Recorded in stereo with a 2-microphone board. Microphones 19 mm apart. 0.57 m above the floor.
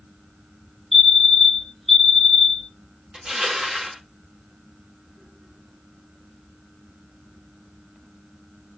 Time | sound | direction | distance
0.9 | a fire alarm | centre (ahead or behind) | 1.8 m
3.1 | crushing | 40° right (ahead or behind) | 1.1 m